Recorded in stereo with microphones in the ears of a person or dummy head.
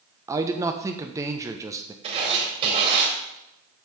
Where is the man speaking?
20° right (ahead or behind), 0.8 m.